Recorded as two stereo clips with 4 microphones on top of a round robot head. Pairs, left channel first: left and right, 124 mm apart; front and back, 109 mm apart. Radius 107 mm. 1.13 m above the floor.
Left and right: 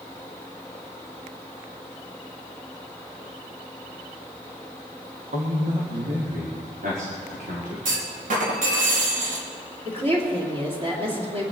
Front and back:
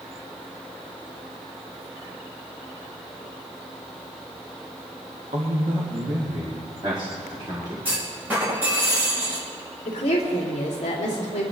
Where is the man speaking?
130° right, 1.4 m; by 7.8 s 115° right, 3 m.